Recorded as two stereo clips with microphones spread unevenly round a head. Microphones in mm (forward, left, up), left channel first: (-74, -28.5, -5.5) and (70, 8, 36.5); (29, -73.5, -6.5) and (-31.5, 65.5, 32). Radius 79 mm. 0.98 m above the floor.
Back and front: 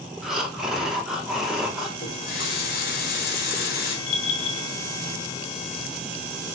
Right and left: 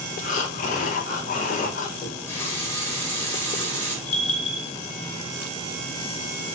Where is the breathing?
80° right, 0.6 m.